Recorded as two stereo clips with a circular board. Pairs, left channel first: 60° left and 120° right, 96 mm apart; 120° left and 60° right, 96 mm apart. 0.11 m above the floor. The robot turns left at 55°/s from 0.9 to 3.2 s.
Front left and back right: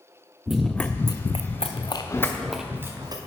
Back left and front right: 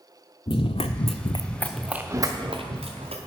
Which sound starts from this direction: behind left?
Running footsteps, at 0.5 s.